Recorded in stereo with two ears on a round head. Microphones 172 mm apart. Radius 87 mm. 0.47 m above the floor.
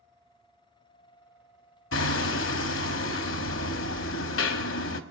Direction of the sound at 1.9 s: 75° left (ahead or behind).